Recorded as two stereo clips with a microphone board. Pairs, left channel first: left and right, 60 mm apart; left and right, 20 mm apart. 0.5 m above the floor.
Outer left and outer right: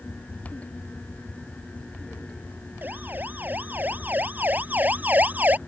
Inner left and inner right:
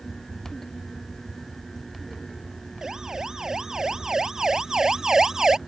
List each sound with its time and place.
2.8 s a siren: 30° right (ahead or behind)